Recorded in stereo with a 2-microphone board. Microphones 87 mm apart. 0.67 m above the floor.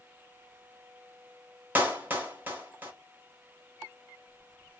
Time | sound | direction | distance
1.8 | a clap | 20° right (ahead or behind) | 0.9 m